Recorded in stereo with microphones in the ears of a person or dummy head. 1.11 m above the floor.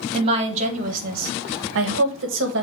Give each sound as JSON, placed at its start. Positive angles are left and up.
{"t": 0.1, "sound": "a woman speaking", "side_deg": -30, "distance_m": 1.2}